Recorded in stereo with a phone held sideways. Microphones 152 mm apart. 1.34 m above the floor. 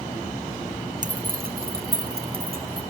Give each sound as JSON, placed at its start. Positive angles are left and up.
{"t": 1.0, "sound": "keys jangling", "side_deg": -55, "distance_m": 0.6}